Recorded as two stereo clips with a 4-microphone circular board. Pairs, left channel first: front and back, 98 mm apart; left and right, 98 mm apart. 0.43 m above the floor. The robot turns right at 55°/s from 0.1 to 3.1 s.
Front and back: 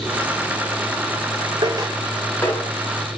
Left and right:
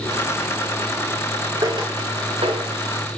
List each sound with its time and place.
1.6 s footsteps: 135° right, 2 m; by 2.7 s 40° right, 1.9 m